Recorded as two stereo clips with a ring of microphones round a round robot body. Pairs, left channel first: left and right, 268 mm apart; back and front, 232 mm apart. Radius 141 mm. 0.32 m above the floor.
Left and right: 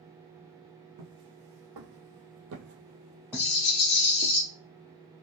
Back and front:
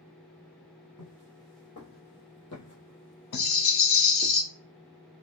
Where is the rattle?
130° left, 0.9 m.